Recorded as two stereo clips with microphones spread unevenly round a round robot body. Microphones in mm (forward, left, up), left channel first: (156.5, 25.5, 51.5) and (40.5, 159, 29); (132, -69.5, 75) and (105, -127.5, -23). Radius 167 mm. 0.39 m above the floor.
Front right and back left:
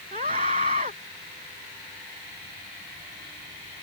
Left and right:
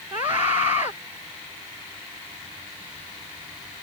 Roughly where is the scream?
Behind.